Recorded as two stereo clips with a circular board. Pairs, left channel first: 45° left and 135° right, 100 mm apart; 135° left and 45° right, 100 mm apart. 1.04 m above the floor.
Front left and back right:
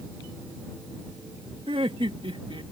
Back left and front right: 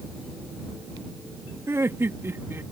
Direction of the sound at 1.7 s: 110° right.